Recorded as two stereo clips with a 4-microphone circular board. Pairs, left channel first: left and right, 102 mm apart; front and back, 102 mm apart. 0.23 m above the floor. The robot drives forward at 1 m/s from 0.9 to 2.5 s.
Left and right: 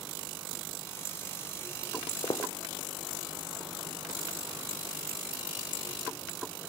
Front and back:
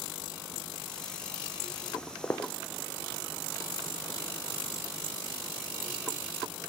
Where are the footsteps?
65° left, 0.7 m; by 6.6 s 25° right, 4.5 m.